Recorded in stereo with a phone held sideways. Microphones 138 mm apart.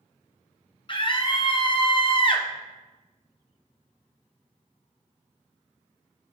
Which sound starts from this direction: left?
A scream, at 0.9 s.